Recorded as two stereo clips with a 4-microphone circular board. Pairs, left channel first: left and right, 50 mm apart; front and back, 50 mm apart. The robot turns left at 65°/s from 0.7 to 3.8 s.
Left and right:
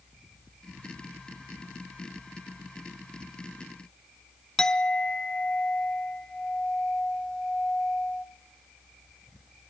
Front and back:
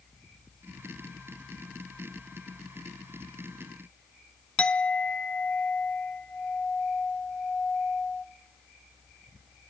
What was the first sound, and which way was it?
A clink, 35° left.